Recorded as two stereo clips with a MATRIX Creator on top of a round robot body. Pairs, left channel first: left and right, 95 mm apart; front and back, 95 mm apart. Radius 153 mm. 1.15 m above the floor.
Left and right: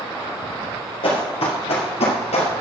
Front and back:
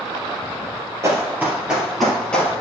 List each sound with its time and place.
1.0 s running footsteps: 120° left, 2.0 m; by 2.5 s 75° left, 2 m